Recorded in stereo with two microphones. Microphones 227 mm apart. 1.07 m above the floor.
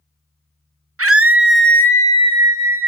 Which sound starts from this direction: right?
A scream, at 1.0 s.